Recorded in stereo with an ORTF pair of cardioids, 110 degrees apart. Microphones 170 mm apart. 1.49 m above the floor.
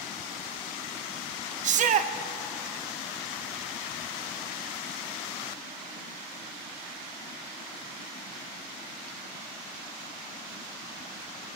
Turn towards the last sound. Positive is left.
turn(degrees=-45)